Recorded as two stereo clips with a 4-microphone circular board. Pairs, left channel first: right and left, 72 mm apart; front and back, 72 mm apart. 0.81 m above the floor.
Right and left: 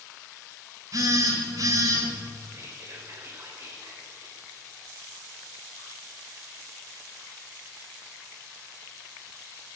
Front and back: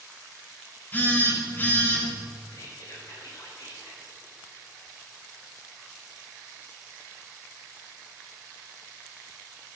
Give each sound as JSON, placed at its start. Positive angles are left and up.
{"t": 0.9, "sound": "a phone buzzing", "azimuth_deg": 60, "distance_m": 1.9}
{"t": 2.5, "sound": "whispering", "azimuth_deg": 35, "distance_m": 3.5}